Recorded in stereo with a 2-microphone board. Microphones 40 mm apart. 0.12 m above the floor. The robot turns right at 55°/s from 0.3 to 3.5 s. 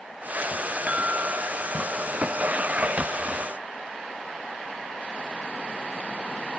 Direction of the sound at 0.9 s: 150° right.